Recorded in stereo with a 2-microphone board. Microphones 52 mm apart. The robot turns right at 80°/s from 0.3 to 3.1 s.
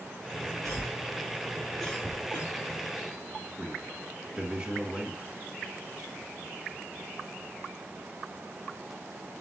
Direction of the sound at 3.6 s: 15° right (ahead or behind).